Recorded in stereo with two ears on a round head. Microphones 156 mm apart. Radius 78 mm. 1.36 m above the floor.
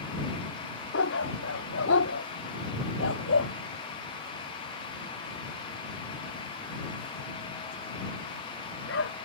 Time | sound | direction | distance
0.9 | a dog barking | 85° left | ?